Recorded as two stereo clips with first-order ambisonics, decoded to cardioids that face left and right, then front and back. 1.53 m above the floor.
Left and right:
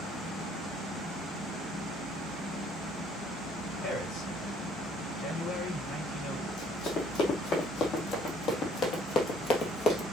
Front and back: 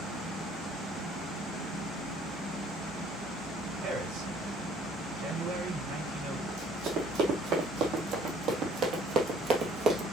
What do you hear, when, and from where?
3.8 s a man speaking: 150° left, 5 m
6.5 s running footsteps: 135° left, 3.5 m; by 10.0 s 130° left, 1.8 m